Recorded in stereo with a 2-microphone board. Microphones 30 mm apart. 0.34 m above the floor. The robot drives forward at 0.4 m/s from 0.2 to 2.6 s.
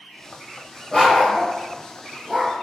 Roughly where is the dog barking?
Left.